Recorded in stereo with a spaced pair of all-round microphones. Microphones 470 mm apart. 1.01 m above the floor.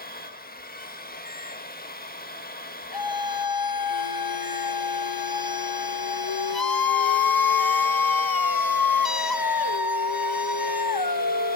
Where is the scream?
45° left (ahead or behind), 0.9 m.